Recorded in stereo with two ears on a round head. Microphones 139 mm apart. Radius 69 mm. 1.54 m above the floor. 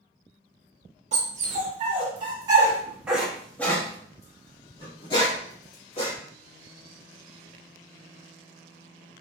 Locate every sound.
1.1 s a dog barking: 45° right (ahead or behind), 1.5 m; by 6.1 s 40° left (ahead or behind), 2 m